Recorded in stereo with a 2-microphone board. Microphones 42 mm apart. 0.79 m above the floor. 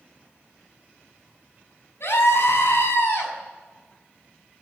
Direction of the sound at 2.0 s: 65° left (ahead or behind).